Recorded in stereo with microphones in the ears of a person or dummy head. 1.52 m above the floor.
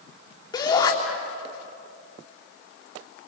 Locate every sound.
0.5 s a shout: 25° left (ahead or behind), 4 m